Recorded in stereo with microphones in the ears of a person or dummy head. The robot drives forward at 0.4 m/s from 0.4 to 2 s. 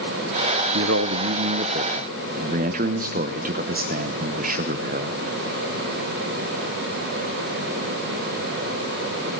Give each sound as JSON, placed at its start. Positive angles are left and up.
{"t": 0.7, "sound": "a man speaking", "side_deg": -60, "distance_m": 0.6}